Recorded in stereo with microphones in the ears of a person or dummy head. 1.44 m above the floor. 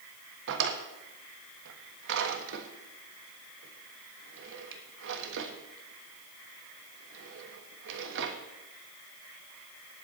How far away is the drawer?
About 1.3 m.